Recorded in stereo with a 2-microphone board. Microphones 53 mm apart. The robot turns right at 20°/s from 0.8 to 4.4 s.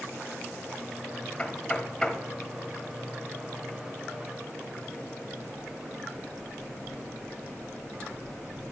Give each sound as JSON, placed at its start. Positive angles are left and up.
{"t": 1.4, "sound": "knocking", "side_deg": 20, "distance_m": 0.9}